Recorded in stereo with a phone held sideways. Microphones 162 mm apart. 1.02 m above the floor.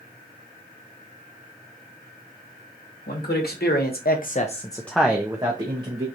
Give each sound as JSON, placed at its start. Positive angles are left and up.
{"t": 3.1, "sound": "a man speaking", "side_deg": 75, "distance_m": 1.3}